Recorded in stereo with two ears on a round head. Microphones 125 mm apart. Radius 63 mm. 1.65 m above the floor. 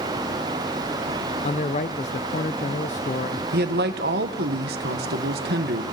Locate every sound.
1.4 s a man speaking: 50° left (ahead or behind), 0.7 m
3.5 s a man speaking: 85° right, 2.0 m